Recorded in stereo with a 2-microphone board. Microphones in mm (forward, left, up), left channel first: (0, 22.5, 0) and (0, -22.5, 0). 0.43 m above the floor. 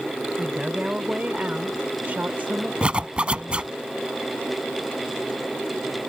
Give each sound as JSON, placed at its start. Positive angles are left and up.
{"t": 0.4, "sound": "a woman speaking", "side_deg": -20}
{"t": 2.8, "sound": "a zipper", "side_deg": -25}